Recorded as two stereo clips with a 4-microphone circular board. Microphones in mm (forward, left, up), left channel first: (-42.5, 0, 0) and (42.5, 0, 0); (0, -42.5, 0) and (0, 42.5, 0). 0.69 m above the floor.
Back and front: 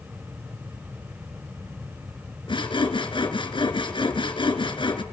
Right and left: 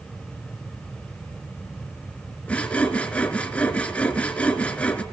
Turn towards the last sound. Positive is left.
turn(degrees=-165)